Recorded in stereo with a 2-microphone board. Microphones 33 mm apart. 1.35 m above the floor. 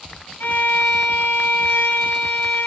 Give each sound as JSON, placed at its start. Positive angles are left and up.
{"t": 0.4, "sound": "a violin", "side_deg": 75, "distance_m": 3.0}